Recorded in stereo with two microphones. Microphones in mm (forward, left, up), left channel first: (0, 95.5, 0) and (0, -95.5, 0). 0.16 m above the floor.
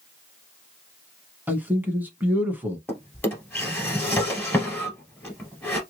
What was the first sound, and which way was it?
A man speaking, 10° right (ahead or behind).